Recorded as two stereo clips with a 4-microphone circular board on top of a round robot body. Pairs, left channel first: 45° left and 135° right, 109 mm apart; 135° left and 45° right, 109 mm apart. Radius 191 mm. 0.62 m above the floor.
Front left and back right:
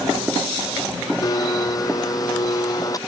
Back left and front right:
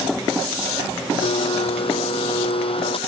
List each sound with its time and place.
1.2 s a blender: 100° left